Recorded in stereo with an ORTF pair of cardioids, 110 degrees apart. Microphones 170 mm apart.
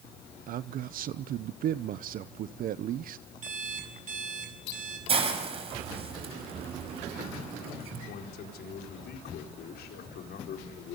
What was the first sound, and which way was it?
A man speaking, 55° right.